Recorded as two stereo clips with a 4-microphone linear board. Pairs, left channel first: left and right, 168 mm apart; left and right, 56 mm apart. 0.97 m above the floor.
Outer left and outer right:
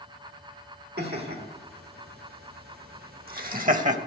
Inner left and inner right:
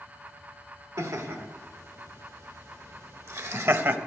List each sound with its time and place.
1.0 s laughter: 70° right (ahead or behind), 2.5 m; by 4.0 s 45° right (ahead or behind), 0.9 m